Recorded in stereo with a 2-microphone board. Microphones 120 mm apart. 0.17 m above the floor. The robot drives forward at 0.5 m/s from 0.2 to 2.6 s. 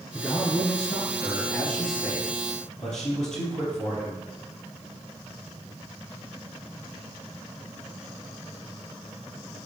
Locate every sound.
0.1 s a man speaking: 5° left (ahead or behind), 2.5 m; by 4.2 s centre (ahead or behind), 3.5 m